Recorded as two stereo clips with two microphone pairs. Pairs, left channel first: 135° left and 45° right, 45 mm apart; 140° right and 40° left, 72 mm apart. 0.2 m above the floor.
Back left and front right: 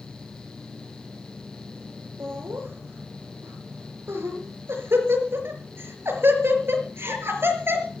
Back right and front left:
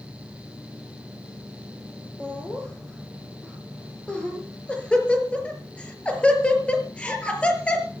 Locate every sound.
2.2 s laughter: 65° right, 4.5 m